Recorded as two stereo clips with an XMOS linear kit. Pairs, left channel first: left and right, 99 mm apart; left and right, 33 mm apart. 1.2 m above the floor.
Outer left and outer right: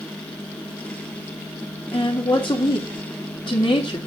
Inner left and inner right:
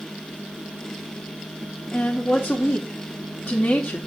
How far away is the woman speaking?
About 2.5 m.